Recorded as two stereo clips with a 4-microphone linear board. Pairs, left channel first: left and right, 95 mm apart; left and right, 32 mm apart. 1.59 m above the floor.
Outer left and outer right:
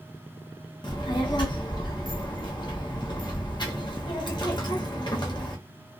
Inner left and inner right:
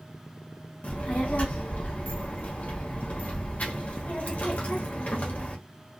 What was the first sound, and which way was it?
A child speaking, 50° left (ahead or behind).